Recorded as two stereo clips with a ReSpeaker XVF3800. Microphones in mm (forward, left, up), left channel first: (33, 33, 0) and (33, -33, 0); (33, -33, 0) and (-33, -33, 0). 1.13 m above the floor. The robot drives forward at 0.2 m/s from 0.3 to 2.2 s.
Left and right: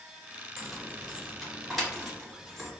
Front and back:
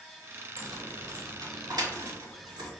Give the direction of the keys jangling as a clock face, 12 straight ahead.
6 o'clock.